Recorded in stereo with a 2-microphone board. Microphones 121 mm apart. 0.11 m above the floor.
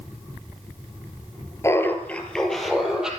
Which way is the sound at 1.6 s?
25° left (ahead or behind).